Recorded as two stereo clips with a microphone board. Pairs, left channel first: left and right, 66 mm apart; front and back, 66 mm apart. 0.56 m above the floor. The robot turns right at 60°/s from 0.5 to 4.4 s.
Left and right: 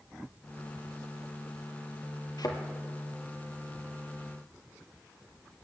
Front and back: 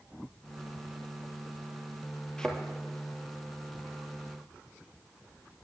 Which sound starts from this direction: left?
A thud, at 2.4 s.